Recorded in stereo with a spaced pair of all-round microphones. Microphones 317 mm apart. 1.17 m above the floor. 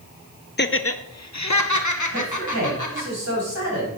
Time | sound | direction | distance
0.6 | laughter | 35° left (ahead or behind) | 0.5 m
2.1 | a man speaking | 55° right (ahead or behind) | 6.5 m